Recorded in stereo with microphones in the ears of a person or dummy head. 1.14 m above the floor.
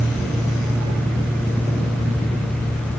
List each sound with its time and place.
Only background noise.